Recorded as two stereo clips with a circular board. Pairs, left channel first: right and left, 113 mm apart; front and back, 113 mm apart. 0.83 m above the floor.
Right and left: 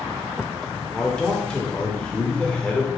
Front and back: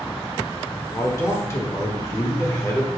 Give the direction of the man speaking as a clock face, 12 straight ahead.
1 o'clock.